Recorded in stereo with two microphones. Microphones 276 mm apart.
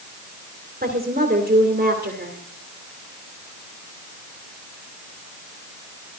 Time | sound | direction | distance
0.8 | a woman speaking | 30° right (ahead or behind) | 2 m